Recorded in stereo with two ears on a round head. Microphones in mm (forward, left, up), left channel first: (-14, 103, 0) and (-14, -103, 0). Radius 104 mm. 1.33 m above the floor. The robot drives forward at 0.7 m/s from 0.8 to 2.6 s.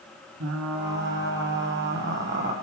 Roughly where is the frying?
Right.